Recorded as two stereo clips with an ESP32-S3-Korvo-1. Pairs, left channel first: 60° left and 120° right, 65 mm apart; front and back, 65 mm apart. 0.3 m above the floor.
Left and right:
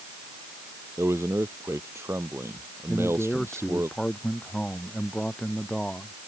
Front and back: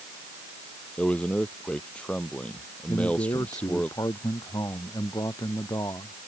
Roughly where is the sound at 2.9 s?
Ahead.